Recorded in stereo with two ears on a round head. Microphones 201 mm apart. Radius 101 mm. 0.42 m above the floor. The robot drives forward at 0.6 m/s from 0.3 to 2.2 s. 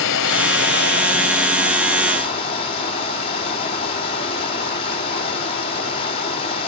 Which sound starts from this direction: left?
Running water, at 0.0 s.